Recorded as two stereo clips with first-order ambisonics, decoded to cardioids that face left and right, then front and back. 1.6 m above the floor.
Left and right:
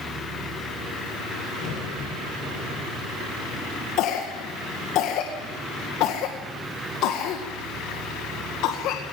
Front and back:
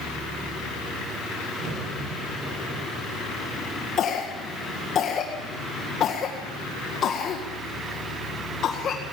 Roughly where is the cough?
Ahead left.